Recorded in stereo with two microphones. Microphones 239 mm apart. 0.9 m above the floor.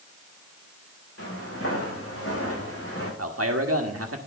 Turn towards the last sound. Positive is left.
turn(degrees=-75)  # may be behind; listen again after turning